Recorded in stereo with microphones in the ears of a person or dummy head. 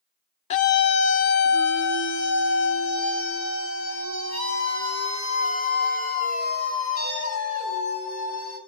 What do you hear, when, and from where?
0.5 s a scream: 35° left (ahead or behind), 0.5 m; by 8.6 s 75° left (ahead or behind), 7.5 m